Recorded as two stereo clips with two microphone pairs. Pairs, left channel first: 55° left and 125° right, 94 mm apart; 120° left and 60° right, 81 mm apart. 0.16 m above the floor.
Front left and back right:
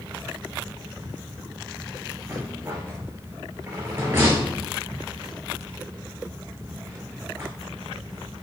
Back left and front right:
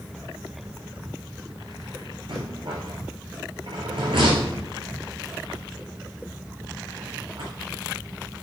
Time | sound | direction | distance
2.3 | a rattle | 65° right | 2.5 m